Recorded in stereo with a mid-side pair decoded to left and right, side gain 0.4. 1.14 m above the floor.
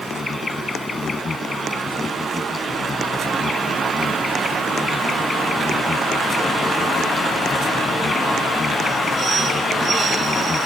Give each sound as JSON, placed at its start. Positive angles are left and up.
{"t": 0.0, "sound": "an insect", "azimuth_deg": 35}